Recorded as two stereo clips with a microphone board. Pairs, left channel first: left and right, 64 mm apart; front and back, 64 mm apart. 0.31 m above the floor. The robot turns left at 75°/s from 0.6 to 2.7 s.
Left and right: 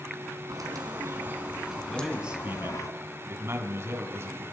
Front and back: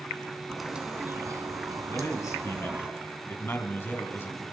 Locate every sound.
0.5 s a bird: 95° right, 2 m; by 2.9 s 110° left, 2 m
1.9 s a man speaking: 10° left, 3 m; by 4.4 s 50° right, 3 m